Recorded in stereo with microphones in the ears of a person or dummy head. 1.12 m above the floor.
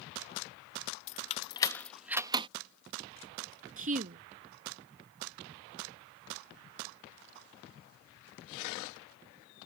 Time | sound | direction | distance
1.1 | keys jangling | 50° left (ahead or behind) | ?
3.8 | a woman speaking | 45° right (ahead or behind) | ?